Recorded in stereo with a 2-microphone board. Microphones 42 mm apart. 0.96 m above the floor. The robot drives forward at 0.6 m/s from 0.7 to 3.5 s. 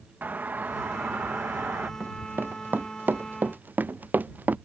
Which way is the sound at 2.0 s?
60° right (ahead or behind).